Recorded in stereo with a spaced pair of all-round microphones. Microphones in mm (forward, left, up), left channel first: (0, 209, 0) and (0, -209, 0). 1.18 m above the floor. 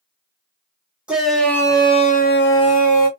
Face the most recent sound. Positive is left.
turn(degrees=50)  # may be behind; listen again after turning